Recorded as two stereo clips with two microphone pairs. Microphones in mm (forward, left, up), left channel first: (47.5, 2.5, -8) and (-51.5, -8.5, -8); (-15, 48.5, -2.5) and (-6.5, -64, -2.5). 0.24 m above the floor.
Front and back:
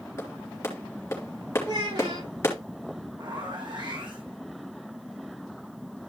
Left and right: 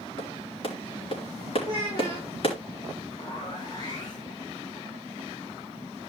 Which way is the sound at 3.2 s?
145° left.